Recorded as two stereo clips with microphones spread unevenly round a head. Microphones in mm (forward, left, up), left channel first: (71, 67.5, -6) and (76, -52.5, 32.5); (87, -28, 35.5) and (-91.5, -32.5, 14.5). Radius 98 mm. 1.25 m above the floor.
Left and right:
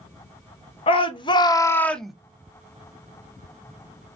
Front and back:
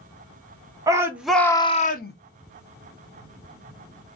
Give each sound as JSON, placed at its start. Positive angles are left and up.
{"t": 0.9, "sound": "a shout", "azimuth_deg": 115, "distance_m": 1.0}